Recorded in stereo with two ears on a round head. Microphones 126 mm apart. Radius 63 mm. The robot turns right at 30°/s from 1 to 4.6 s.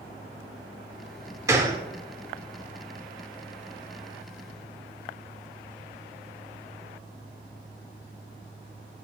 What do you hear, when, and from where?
1.5 s a gunshot: 25° right (ahead or behind), 1.0 m; by 1.8 s 30° right (ahead or behind), 1.0 m